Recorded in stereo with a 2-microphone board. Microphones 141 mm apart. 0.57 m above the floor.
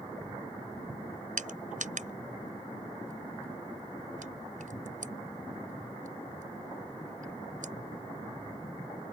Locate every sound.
1.4 s crushing: 70° right (ahead or behind)